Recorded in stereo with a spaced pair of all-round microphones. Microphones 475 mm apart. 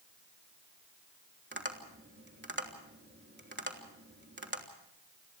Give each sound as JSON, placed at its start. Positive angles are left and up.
{"t": 1.5, "sound": "tapping", "side_deg": -20, "distance_m": 3.0}